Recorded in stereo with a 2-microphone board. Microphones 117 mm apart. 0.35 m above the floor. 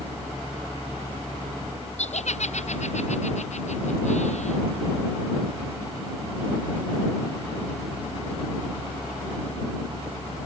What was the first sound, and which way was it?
Laughter, 75° left (ahead or behind).